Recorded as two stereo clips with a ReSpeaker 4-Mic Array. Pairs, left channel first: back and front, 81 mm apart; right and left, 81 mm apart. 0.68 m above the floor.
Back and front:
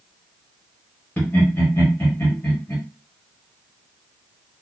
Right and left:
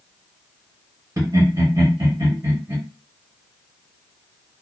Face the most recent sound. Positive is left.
turn(degrees=120)